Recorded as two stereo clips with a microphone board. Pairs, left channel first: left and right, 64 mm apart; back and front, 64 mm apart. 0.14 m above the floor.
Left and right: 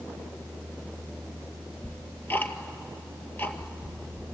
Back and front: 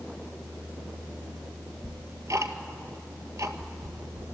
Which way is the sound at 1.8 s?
35° left.